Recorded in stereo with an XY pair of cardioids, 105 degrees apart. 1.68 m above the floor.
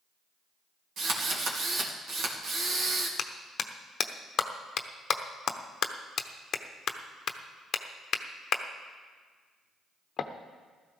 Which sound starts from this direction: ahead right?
A drill, at 1.0 s.